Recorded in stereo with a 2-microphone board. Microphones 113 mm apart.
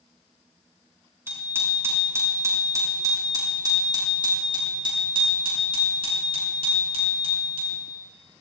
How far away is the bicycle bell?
About 6.5 m.